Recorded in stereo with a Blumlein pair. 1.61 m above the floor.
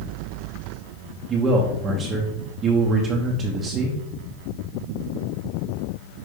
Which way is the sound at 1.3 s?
20° right.